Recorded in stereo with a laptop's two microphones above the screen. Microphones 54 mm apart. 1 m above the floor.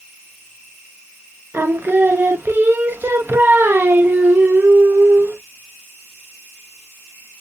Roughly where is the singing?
Right.